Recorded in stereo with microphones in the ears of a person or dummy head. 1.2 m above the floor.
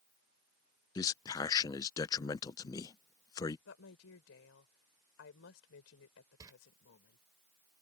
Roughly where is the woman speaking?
Left.